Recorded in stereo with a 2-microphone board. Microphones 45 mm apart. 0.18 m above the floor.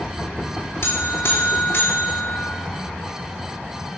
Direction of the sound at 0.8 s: 75° left (ahead or behind).